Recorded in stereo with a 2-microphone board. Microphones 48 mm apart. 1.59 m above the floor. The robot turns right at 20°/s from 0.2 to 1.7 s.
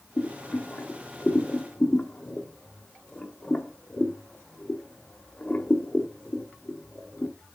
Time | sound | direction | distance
0.2 | boiling | 40° left (ahead or behind) | 1.7 m